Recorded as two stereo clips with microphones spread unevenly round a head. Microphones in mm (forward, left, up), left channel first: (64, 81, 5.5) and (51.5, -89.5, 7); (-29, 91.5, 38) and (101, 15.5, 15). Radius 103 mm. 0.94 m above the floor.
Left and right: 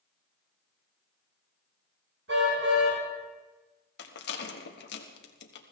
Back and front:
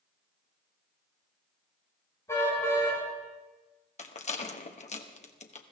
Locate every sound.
2.3 s a car horn: 135° right, 5 m
4.0 s a rattle: 105° left, 1.4 m